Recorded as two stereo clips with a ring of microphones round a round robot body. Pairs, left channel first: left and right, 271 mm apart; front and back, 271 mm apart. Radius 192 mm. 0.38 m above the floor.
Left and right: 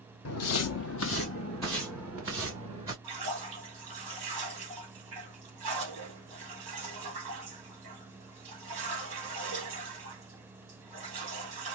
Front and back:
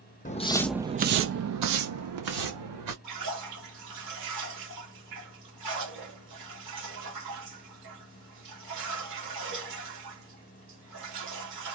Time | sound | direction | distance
0.2 | footsteps | 65° left | 0.8 m
3.0 | a splash | 145° right | 2.0 m